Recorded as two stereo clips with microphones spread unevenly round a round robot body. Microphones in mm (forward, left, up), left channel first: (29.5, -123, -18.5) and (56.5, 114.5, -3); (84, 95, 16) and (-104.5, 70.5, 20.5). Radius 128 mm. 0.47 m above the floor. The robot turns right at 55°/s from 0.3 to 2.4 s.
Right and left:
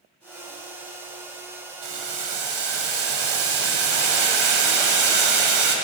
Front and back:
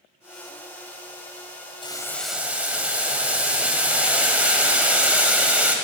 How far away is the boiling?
About 1.8 m.